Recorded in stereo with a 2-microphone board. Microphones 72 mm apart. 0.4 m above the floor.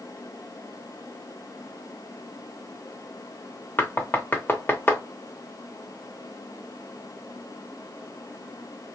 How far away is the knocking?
About 0.6 m.